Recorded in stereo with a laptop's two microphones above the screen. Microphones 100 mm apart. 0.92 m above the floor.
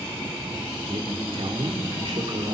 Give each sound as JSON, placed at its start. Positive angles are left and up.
{"t": 0.9, "sound": "a man speaking", "side_deg": -65, "distance_m": 3.0}